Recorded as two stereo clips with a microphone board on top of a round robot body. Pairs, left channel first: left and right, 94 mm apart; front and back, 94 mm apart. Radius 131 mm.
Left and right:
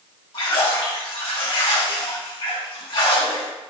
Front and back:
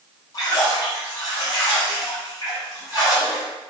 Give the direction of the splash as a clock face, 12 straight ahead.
10 o'clock.